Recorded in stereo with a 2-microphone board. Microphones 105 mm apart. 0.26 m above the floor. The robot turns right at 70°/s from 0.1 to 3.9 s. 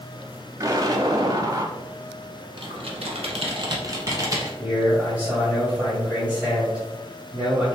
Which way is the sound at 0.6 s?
125° right.